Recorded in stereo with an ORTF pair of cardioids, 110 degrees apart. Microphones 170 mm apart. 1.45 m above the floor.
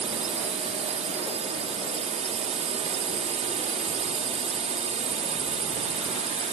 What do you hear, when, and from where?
0.0 s a drone: 40° right